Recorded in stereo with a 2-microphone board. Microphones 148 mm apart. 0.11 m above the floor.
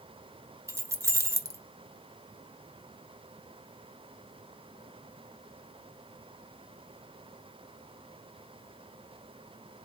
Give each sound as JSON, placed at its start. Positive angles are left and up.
{"t": 0.7, "sound": "keys jangling", "side_deg": -20, "distance_m": 0.9}